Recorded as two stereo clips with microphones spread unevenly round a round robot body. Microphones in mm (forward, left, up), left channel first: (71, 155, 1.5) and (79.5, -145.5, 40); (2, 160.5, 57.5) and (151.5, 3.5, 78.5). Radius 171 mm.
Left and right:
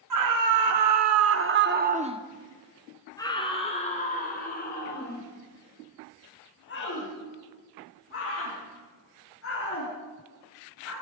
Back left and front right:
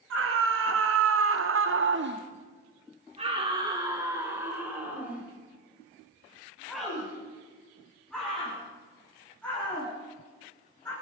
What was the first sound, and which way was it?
A scream, 80° right.